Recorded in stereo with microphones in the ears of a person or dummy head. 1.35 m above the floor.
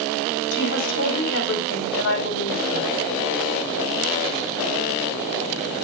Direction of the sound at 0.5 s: 65° left (ahead or behind).